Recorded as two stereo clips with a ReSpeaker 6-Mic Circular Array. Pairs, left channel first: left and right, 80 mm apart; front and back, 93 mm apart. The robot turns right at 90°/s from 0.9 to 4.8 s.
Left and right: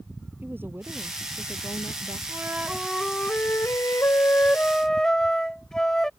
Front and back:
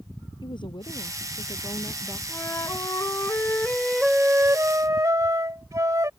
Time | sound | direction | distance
0.4 | a woman speaking | 30° right | ?
2.3 | a flute | 55° right | ?